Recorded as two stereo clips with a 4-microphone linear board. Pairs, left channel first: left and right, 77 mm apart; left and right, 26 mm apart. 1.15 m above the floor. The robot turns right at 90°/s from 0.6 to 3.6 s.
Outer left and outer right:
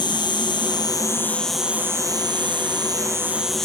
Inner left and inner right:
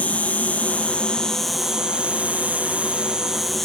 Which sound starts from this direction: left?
An insect, at 0.0 s.